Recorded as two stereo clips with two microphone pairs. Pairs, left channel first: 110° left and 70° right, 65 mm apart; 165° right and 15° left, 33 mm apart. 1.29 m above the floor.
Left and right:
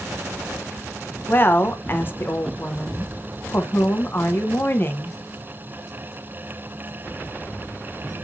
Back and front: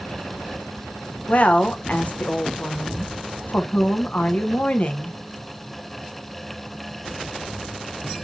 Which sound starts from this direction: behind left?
A woman speaking, at 1.3 s.